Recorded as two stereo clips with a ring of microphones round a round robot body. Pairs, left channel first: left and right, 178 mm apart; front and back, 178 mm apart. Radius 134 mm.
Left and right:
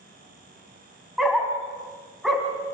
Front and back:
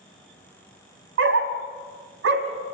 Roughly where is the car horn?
I don't hear a car horn.